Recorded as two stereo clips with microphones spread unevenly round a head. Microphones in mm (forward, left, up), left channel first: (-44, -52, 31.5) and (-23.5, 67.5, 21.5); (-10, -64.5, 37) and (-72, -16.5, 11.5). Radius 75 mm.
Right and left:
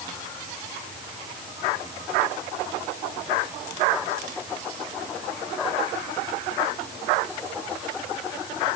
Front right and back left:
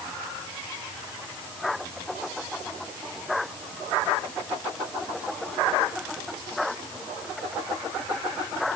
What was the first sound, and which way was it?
Only background noise.